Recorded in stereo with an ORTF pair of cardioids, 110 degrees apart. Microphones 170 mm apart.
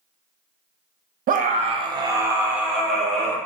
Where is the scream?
55° right, 0.6 m; by 3.4 s 5° left, 1.4 m.